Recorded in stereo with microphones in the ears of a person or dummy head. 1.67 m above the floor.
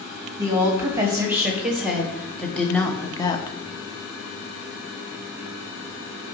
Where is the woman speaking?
20° right (ahead or behind), 2.5 m; by 3.6 s 25° left (ahead or behind), 0.9 m.